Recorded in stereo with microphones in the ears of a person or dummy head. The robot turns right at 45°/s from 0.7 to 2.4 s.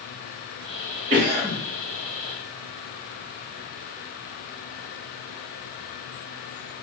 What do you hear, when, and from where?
1.1 s a cough: 40° right (ahead or behind), 1.2 m; by 1.6 s 20° right (ahead or behind), 1.2 m